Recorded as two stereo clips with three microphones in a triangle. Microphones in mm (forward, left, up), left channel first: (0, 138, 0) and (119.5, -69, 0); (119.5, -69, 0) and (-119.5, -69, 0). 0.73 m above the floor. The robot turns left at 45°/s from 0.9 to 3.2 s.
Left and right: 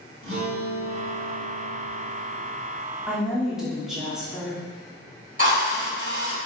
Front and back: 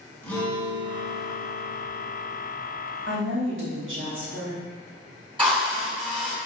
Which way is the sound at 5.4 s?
110° right.